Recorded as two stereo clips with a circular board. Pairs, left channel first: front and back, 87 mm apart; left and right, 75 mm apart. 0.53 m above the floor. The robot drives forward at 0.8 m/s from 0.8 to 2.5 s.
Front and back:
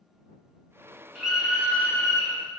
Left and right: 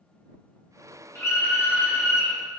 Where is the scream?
100° left, 1.5 m; by 2.4 s 140° left, 1.8 m.